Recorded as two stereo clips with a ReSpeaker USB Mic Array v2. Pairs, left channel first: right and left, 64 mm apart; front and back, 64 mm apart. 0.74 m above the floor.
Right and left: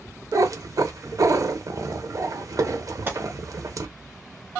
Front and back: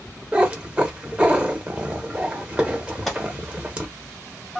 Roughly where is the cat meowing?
Left.